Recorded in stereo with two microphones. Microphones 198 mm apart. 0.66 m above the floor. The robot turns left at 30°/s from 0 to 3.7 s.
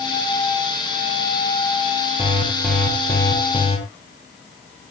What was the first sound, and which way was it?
An alarm, 165° right.